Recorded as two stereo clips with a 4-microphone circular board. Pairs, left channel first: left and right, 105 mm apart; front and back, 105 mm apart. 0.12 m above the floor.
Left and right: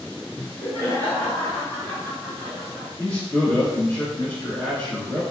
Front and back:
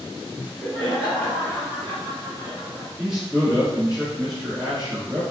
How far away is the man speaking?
About 1.3 m.